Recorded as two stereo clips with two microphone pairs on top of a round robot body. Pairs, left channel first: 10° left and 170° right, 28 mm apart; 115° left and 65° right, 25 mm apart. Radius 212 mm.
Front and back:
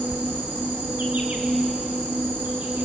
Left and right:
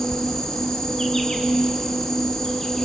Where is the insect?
175° right, 0.8 m.